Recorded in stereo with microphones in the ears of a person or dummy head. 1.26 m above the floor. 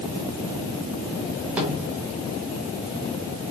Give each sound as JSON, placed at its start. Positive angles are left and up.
{"t": 1.6, "sound": "a snare drum", "side_deg": -5, "distance_m": 2.5}